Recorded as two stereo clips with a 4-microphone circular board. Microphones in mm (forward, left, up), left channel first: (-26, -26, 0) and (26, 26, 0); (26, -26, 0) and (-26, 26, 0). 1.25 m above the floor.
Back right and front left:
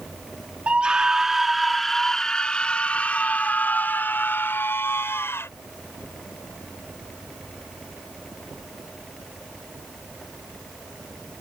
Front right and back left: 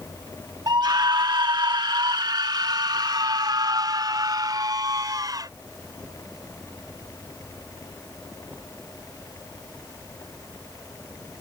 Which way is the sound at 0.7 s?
115° left.